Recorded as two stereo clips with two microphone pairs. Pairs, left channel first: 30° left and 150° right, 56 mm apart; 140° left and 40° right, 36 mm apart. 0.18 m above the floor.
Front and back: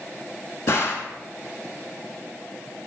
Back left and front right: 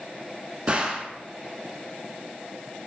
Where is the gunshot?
15° left, 0.6 m.